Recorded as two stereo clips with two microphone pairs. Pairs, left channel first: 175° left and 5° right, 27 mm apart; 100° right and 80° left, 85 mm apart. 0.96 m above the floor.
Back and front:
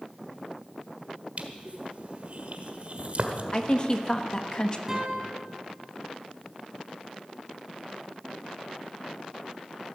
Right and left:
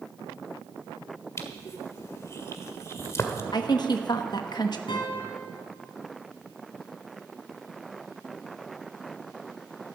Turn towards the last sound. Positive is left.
turn(degrees=-85)